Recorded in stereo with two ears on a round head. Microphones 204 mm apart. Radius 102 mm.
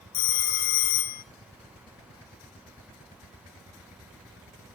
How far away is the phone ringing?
About 1.3 m.